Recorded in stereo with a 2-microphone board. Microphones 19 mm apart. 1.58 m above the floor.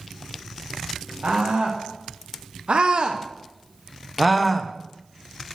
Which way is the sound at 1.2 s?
80° right.